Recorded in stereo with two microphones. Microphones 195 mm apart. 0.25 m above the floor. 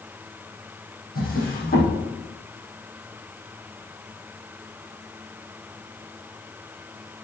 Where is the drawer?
50° left (ahead or behind), 6.5 m.